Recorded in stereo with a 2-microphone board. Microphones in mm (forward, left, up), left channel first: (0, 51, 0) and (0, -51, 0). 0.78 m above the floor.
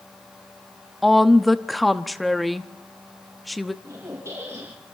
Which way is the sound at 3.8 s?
25° right (ahead or behind).